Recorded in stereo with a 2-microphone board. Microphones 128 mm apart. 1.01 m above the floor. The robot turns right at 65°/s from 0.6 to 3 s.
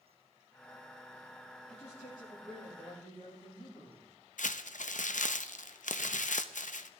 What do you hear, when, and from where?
1.7 s a man speaking: 55° left, 6.5 m; by 4.1 s 140° left, 6.5 m
4.4 s crumpling: 80° left, 0.6 m